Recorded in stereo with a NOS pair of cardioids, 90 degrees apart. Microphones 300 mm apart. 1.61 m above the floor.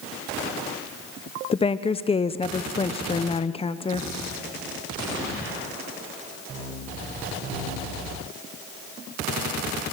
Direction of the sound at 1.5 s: 20° left.